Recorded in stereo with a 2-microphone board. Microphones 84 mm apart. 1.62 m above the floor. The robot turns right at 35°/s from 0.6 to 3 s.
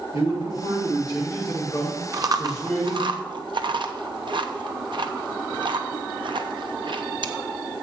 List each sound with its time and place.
0.1 s a man speaking: 100° left, 5.5 m; by 3.1 s 175° right, 5.5 m
2.1 s chewing: 45° right (ahead or behind), 0.8 m; by 7.3 s 65° right (ahead or behind), 0.8 m